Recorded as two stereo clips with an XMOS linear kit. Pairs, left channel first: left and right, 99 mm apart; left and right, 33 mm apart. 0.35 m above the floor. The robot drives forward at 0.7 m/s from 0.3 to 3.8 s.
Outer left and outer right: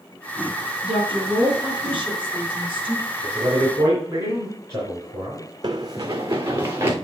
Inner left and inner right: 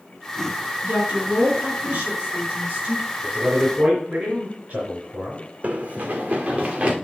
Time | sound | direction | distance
0.8 | a woman speaking | 60° right (ahead or behind) | 5 m
3.2 | a man speaking | 40° right (ahead or behind) | 3.5 m
5.6 | running footsteps | 45° right (ahead or behind) | 0.9 m